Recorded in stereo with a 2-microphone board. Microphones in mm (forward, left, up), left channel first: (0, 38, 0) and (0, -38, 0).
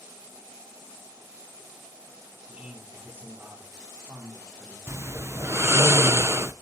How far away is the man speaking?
About 4 m.